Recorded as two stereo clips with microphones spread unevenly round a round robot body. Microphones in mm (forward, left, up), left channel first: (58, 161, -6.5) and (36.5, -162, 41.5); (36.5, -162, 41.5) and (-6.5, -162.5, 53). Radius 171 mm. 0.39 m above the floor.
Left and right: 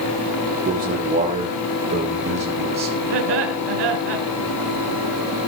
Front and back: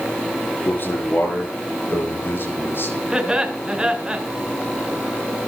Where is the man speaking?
30° right, 9 m; by 3.0 s 20° right, 8 m.